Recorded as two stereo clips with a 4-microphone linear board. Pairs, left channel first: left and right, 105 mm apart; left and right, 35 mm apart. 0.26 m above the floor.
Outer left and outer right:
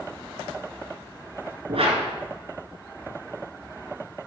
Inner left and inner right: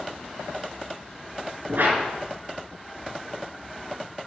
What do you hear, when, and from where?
1.7 s a whoosh: 65° right (ahead or behind), 2.5 m